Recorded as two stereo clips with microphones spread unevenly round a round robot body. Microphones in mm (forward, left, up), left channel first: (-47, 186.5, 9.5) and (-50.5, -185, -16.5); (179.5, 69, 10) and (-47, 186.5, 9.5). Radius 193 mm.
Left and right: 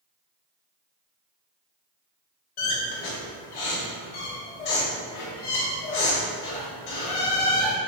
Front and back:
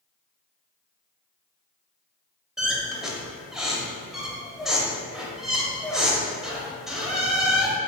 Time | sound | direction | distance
2.6 | a squeak | 65° left | 0.7 m